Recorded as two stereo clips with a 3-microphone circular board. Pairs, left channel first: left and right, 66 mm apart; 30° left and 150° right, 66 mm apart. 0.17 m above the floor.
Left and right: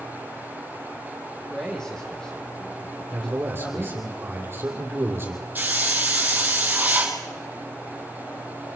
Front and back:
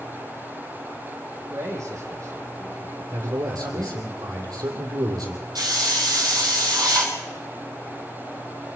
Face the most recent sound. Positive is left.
turn(degrees=-150)